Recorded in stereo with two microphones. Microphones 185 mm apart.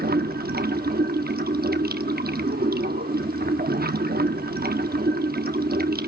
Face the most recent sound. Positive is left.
turn(degrees=-60)  # may be behind; listen again after turning